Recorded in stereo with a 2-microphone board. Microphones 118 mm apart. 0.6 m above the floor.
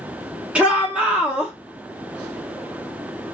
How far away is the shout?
About 0.9 m.